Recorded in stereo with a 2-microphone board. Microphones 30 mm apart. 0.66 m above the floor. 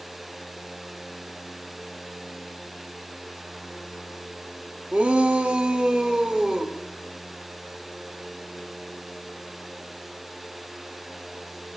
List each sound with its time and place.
4.9 s a shout: 55° right (ahead or behind), 1.1 m; by 6.8 s 30° right (ahead or behind), 2 m